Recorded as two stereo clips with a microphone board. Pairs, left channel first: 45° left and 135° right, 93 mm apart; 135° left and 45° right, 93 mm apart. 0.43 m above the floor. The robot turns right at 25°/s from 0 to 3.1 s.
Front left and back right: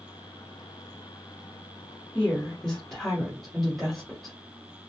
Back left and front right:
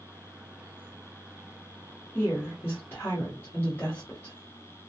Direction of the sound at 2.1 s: 100° left.